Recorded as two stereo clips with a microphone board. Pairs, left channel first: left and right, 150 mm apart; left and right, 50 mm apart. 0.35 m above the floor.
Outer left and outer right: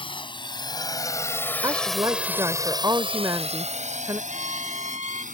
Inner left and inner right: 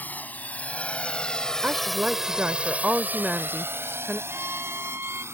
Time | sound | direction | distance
0.0 | a drone | 35° left (ahead or behind) | ?
1.6 | a woman speaking | 25° right (ahead or behind) | ?
4.3 | a violin | 50° right (ahead or behind) | ?